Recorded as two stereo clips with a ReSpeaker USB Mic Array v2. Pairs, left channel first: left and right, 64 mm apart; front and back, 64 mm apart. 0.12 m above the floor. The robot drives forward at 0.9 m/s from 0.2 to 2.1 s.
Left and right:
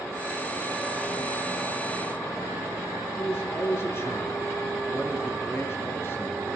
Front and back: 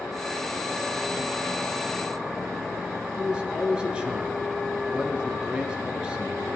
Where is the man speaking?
115° left, 2 m.